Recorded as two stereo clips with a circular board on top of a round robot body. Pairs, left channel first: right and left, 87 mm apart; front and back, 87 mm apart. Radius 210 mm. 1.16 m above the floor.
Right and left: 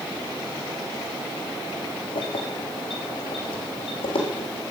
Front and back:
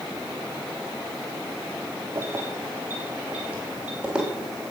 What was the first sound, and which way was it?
Keys jangling, 115° right.